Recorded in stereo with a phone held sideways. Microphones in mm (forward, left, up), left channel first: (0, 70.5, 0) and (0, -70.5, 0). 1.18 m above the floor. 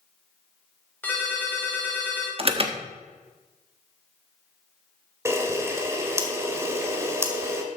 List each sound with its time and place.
1.0 s a ringtone: 10° left (ahead or behind), 3 m
2.4 s an alarm: 40° right (ahead or behind), 1.3 m
5.2 s a camera shutter: 20° right (ahead or behind), 1.8 m